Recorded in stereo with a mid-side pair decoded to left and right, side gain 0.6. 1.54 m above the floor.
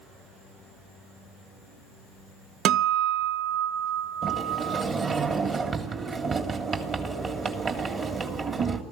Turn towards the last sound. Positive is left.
turn(degrees=-40)